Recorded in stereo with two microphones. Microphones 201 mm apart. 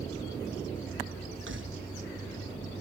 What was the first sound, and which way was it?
Keys jangling, 75° right (ahead or behind).